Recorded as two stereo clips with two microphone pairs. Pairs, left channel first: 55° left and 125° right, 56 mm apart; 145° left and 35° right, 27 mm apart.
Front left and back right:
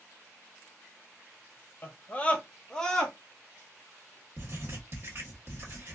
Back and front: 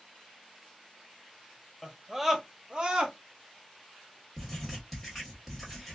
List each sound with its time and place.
1.8 s a scream: 70° left, 0.8 m; by 3.1 s 25° right, 1.0 m
4.4 s writing: 130° right, 1.5 m